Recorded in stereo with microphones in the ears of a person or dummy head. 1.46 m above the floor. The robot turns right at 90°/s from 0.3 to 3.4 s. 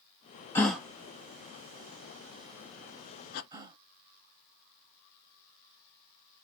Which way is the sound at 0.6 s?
15° left (ahead or behind).